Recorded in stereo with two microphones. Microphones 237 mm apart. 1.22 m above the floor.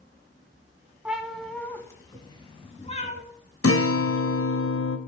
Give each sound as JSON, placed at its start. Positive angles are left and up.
{"t": 1.1, "sound": "a cat meowing", "side_deg": -5, "distance_m": 1.6}
{"t": 3.6, "sound": "a guitar", "side_deg": 80, "distance_m": 1.0}